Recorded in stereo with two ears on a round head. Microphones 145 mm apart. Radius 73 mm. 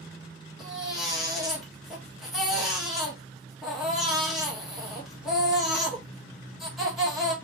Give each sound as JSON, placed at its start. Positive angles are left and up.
{"t": 0.6, "sound": "a baby crying", "side_deg": 0, "distance_m": 1.4}